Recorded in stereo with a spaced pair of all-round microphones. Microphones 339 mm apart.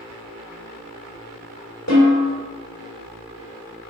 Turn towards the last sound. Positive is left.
turn(degrees=55)  # may be behind; listen again after turning